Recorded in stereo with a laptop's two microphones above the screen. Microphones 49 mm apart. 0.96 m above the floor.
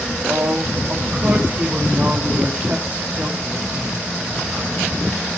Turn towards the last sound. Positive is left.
turn(degrees=-20)  # may be behind; listen again after turning